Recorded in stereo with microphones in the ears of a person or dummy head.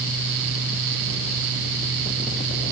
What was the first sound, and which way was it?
Only background noise.